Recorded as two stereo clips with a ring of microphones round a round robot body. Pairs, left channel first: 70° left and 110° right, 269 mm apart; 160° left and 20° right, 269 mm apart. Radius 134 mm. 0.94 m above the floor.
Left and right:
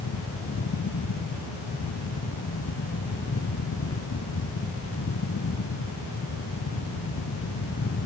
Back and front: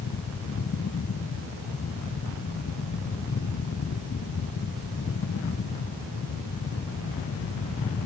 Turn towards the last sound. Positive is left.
No sound to turn to.